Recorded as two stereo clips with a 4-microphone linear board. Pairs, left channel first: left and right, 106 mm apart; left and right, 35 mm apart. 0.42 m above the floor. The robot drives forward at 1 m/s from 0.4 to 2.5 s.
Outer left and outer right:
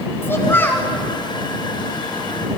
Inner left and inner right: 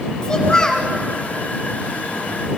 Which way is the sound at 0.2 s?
20° left (ahead or behind).